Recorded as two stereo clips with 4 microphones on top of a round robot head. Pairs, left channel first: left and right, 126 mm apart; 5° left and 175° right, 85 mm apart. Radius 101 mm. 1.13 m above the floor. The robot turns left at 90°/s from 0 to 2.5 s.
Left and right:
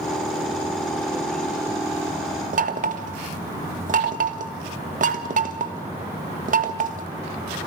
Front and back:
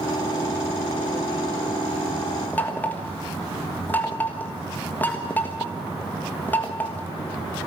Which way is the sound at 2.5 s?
70° right.